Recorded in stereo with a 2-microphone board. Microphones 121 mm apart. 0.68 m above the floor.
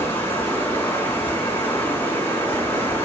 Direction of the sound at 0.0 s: 20° left (ahead or behind).